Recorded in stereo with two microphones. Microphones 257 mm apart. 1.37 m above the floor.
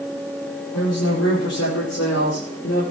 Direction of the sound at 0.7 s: 80° left.